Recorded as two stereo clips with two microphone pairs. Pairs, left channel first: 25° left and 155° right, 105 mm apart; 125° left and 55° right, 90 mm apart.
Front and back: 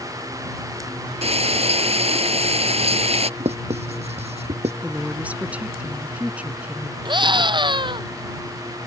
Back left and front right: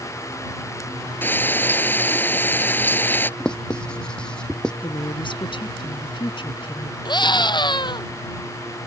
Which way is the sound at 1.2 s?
165° right.